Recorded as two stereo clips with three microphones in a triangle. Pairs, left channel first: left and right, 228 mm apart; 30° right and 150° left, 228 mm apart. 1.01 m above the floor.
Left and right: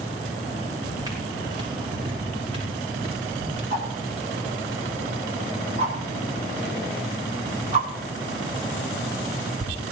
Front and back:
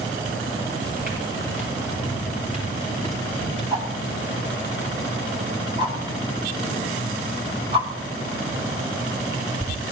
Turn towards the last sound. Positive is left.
turn(degrees=-145)